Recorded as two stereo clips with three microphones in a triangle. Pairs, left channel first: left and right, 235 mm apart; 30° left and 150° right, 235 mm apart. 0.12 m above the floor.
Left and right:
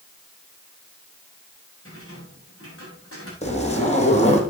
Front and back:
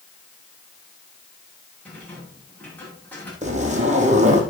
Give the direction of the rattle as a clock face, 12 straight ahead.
8 o'clock.